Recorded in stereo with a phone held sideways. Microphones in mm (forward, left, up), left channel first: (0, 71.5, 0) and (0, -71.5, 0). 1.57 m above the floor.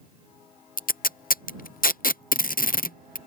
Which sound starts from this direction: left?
Tape being pulled, at 0.8 s.